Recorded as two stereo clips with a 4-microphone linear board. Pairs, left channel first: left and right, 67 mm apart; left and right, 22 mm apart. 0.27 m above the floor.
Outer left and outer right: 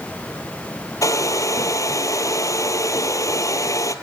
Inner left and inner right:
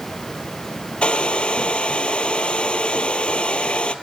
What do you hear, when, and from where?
1.0 s a hair dryer: 60° left (ahead or behind), 1.3 m